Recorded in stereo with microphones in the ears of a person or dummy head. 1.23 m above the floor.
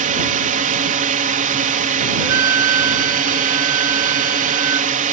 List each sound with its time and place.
0.0 s a drone: 40° right (ahead or behind)
2.2 s a flute: 10° right (ahead or behind)